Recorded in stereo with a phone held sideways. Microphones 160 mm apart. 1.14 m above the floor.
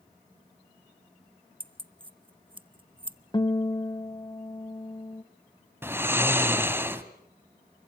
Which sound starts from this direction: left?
A guitar, at 3.3 s.